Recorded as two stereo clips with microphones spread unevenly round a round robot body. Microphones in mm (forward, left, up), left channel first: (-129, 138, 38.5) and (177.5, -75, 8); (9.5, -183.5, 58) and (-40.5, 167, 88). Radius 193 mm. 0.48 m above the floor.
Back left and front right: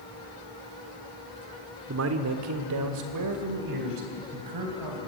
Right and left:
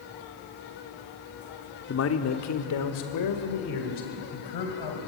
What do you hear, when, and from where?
1.9 s a man speaking: 60° right, 1.3 m; by 5.1 s 65° right, 3.5 m